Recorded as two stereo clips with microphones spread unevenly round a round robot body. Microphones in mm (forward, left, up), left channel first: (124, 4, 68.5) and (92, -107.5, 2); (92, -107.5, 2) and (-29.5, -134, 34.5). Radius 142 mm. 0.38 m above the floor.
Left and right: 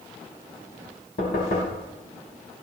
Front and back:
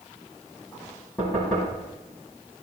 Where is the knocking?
95° left, 3.5 m.